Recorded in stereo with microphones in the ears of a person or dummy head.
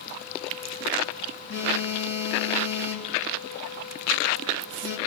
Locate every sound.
1.5 s a phone buzzing: 75° left (ahead or behind), 5 m